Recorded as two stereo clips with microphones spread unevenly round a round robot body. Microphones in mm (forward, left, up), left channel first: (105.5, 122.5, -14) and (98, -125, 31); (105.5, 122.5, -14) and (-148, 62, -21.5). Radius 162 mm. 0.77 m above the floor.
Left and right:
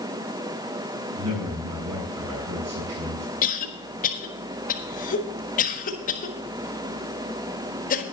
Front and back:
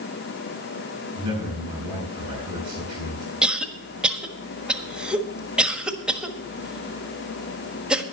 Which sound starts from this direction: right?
A man speaking, at 1.2 s.